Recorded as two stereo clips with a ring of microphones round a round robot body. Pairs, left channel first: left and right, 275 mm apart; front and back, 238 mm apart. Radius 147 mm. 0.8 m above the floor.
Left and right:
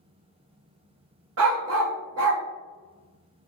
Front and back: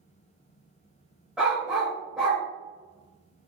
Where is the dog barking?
95° right, 0.6 m.